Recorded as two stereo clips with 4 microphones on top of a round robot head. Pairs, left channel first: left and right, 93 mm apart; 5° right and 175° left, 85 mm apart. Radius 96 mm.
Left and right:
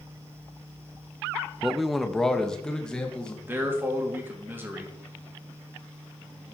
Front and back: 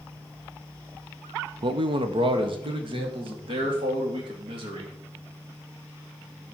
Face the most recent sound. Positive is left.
turn(degrees=-160)